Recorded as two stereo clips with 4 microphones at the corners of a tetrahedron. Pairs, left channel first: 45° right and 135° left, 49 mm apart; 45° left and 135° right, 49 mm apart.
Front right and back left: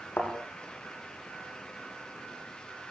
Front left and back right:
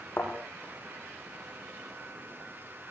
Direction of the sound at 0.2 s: 5° right.